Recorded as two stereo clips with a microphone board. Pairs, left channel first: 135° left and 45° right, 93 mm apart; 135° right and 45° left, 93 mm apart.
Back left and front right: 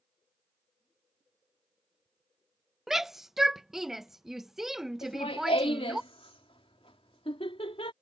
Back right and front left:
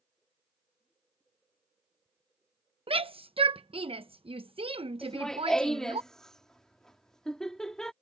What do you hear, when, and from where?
2.9 s a shout: 40° left
5.0 s laughter: 140° left